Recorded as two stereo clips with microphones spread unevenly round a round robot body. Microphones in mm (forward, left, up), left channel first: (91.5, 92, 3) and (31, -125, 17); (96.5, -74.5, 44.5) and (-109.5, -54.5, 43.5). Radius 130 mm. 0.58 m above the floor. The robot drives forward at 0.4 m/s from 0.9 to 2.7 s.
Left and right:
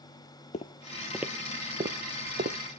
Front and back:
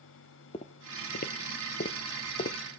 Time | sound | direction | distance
0.5 | footsteps | 40° left | 0.6 m